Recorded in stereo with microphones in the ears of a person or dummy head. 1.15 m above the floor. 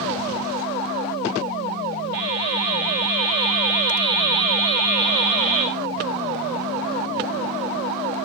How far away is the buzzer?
About 5 m.